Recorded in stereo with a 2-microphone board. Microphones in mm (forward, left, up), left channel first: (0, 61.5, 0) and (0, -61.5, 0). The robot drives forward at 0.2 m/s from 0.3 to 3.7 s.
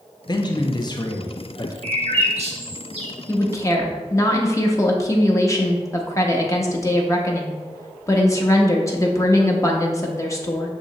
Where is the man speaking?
35° left (ahead or behind), 0.5 m; by 1.7 s 30° left (ahead or behind), 0.6 m.